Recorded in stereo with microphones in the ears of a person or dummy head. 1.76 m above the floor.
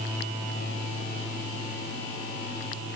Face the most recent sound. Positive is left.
No sound to turn to.